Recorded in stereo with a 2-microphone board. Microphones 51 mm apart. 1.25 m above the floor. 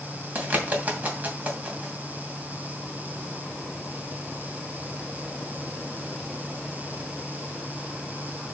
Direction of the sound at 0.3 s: 30° right (ahead or behind).